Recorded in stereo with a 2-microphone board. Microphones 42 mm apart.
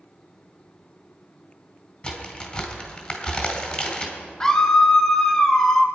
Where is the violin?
I don't hear a violin.